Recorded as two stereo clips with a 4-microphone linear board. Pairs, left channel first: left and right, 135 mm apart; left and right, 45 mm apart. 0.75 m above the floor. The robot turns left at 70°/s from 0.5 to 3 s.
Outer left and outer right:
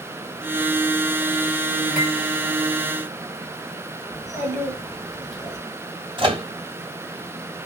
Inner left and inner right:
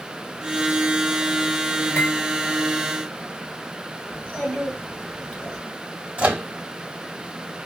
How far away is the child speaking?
About 2.5 m.